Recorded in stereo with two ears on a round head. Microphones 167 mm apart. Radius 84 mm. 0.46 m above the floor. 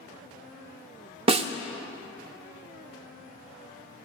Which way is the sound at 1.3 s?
30° right (ahead or behind).